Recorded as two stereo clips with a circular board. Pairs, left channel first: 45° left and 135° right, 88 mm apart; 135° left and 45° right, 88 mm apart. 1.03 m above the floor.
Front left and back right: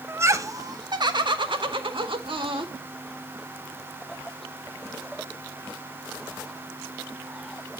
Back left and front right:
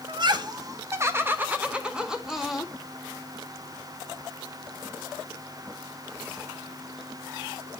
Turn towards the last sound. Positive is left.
turn(degrees=-135)